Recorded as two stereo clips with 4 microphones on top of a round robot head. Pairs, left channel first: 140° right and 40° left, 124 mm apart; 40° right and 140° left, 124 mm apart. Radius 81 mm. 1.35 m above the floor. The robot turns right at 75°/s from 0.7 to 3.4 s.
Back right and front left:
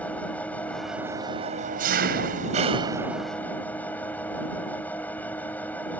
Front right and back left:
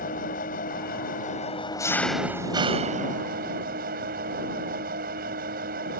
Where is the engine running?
60° right; by 6.0 s 145° left.